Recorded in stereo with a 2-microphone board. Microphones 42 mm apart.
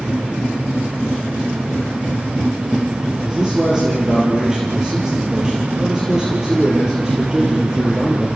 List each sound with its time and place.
3.2 s a man speaking: 20° right (ahead or behind), 4.5 m